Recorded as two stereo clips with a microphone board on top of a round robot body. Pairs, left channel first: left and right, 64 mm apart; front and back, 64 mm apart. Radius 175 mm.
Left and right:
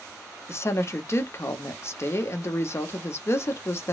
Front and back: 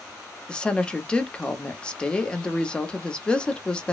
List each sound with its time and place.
0.5 s a woman speaking: 70° left, 0.9 m